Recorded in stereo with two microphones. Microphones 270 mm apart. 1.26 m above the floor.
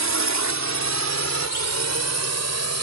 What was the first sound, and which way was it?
A drone, 85° right.